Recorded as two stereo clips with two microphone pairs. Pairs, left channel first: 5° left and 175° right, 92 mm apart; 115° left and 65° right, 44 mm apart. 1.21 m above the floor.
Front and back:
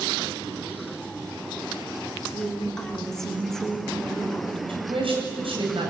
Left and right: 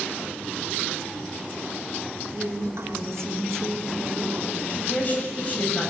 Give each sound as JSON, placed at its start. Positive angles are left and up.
{"t": 2.3, "sound": "a woman speaking", "azimuth_deg": -75, "distance_m": 4.0}
{"t": 4.7, "sound": "a woman speaking", "azimuth_deg": 170, "distance_m": 8.0}